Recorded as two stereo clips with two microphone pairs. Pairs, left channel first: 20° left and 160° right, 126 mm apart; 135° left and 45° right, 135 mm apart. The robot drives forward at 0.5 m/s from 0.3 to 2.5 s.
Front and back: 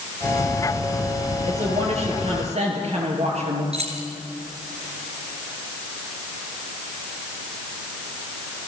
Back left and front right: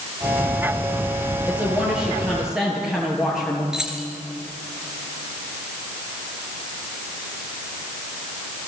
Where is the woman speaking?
125° right, 6.5 m; by 3.6 s 130° right, 7 m.